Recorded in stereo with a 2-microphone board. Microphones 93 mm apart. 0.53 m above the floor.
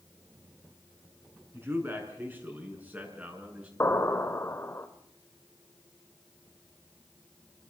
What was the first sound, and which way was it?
A man speaking, 25° right (ahead or behind).